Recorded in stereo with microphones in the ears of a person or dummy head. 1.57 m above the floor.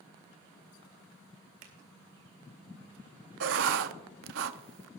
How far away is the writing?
About 0.5 m.